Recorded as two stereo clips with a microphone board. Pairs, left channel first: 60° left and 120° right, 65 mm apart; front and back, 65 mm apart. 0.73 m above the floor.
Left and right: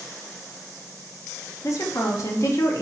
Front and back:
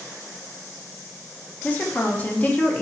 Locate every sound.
1.6 s a woman speaking: 55° left, 0.7 m